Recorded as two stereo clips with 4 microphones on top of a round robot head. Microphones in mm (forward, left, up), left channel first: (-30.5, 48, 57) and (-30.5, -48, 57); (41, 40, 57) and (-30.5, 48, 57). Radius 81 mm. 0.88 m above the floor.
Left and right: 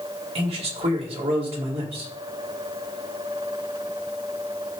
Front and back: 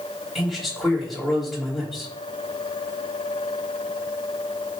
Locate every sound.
0.3 s a man speaking: 95° right, 3.5 m